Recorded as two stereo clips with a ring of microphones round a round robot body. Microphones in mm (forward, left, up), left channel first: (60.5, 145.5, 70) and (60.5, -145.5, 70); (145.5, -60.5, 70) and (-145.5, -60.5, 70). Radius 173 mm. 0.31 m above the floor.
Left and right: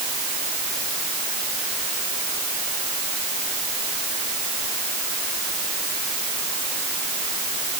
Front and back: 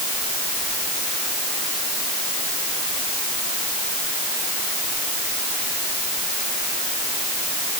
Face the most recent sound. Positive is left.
No sound to turn to.